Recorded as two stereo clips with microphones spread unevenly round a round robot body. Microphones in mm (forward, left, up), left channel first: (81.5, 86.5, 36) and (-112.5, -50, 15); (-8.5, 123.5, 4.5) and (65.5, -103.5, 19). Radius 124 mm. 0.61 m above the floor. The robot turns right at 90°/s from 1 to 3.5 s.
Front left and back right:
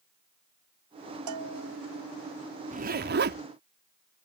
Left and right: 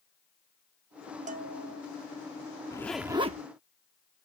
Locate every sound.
1.3 s a bell: 135° right; by 1.8 s 85° right
2.7 s a zipper: 175° left; by 4.2 s 115° right